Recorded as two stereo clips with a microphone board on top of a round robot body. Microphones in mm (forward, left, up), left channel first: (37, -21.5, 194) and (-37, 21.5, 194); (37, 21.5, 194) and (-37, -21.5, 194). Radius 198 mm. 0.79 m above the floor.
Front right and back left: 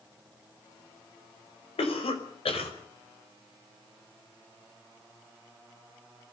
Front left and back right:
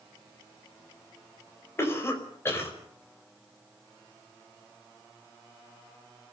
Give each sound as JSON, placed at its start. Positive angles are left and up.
{"t": 1.8, "sound": "a cough", "azimuth_deg": -35, "distance_m": 5.0}